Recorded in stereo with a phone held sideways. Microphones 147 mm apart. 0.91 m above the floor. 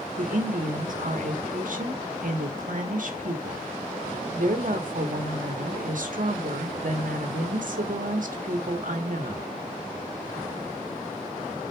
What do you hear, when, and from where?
0.2 s a woman speaking: 65° right (ahead or behind), 1.3 m